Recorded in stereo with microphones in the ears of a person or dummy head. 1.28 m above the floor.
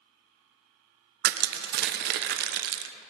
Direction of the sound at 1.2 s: 50° right (ahead or behind).